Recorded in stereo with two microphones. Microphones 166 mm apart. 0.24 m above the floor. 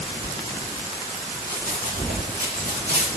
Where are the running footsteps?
70° right (ahead or behind), 3 m; by 3.1 s 80° right, 3.5 m.